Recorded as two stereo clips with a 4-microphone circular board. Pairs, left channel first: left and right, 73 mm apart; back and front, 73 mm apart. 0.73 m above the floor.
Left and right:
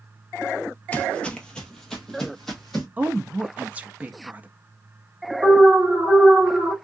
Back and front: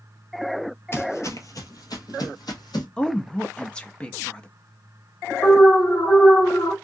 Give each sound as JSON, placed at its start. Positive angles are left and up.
{"t": 0.9, "sound": "footsteps", "azimuth_deg": 150, "distance_m": 0.9}
{"t": 3.0, "sound": "a woman speaking", "azimuth_deg": -125, "distance_m": 0.6}
{"t": 5.4, "sound": "an alarm", "azimuth_deg": -140, "distance_m": 1.4}